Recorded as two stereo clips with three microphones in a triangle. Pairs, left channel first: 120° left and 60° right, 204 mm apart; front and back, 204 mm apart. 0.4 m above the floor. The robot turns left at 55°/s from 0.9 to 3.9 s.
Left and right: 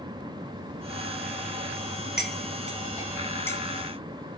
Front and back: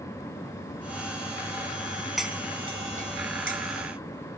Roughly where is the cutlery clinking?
Right.